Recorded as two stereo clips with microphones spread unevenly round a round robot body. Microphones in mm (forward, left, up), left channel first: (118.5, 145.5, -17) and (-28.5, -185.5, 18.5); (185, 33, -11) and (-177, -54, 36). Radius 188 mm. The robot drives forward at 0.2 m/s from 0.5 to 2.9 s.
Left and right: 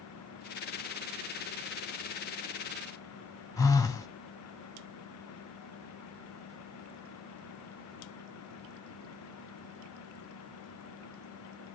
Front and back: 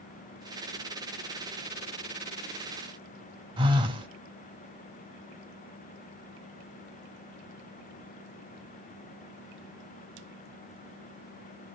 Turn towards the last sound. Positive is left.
turn(degrees=120)